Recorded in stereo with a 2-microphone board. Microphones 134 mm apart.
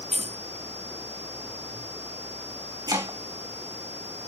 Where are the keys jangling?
50° right (ahead or behind), 2.5 m.